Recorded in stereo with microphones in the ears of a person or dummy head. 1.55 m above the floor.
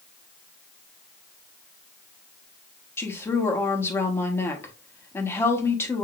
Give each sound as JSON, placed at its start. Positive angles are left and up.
{"t": 3.0, "sound": "a woman speaking", "side_deg": 15, "distance_m": 1.2}